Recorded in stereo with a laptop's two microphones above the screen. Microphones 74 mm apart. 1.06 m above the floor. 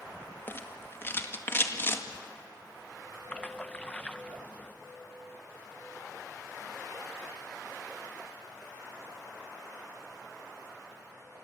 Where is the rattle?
30° left (ahead or behind), 1.9 m.